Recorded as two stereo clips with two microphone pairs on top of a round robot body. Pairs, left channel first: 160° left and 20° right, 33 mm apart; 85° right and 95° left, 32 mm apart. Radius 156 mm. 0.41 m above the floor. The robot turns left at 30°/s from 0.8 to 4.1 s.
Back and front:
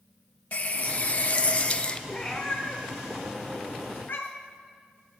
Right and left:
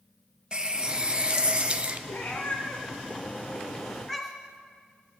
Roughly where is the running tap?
Behind left.